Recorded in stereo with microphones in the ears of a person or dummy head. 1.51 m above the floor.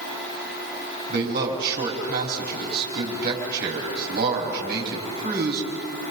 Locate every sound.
1.1 s a man speaking: 50° right (ahead or behind), 5 m